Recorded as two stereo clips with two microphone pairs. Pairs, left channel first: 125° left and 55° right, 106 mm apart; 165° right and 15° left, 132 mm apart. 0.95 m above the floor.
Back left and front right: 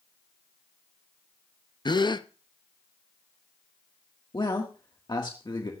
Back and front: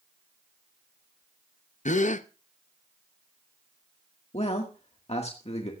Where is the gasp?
175° left, 0.6 m.